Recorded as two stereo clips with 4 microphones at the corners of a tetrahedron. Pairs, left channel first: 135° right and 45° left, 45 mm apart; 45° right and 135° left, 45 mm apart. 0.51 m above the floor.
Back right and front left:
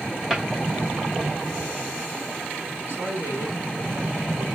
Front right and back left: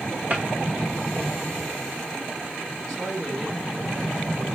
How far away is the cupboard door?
About 1.2 m.